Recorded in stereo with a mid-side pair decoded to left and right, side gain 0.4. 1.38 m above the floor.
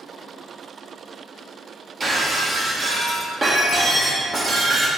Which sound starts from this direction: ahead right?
Breaking glass, at 2.0 s.